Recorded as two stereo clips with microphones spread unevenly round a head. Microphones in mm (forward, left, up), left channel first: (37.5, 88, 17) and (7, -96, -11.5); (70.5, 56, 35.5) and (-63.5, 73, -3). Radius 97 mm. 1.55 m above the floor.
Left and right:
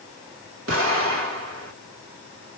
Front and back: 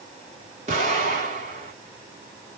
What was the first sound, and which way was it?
An explosion, 130° right.